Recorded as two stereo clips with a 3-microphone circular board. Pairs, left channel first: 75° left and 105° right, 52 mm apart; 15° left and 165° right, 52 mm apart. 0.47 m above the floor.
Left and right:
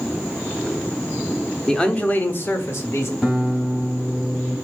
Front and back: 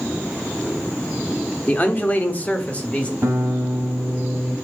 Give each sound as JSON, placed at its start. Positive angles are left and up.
{"t": 1.7, "sound": "a man speaking", "azimuth_deg": 0, "distance_m": 0.8}
{"t": 3.2, "sound": "a guitar", "azimuth_deg": 165, "distance_m": 3.0}